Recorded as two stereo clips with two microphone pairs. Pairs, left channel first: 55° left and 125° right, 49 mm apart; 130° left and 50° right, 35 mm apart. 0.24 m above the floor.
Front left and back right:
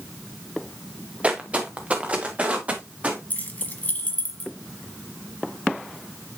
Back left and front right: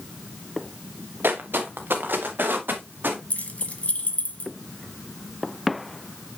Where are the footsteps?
65° right, 1.6 m.